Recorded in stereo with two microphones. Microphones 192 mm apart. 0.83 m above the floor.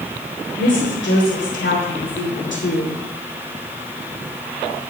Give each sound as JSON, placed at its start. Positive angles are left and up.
{"t": 0.6, "sound": "a woman speaking", "side_deg": 80, "distance_m": 4.0}